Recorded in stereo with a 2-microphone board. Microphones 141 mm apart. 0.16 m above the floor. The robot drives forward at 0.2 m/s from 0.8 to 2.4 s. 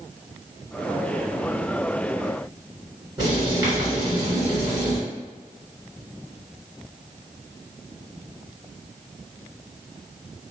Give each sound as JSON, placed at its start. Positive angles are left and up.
{"t": 3.2, "sound": "writing", "side_deg": -30, "distance_m": 1.6}